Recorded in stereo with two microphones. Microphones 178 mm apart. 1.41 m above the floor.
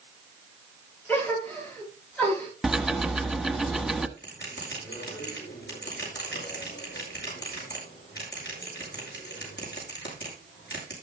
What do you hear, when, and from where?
1.1 s a gasp: 10° left (ahead or behind), 7.5 m
2.6 s ticking: centre (ahead or behind), 1.0 m
4.2 s a bell: 75° left (ahead or behind), 7.5 m